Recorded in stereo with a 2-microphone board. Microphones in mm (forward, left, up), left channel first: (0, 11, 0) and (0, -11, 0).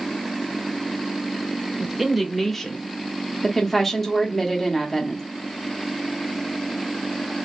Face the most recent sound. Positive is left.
turn(degrees=10)  # may be behind; listen again after turning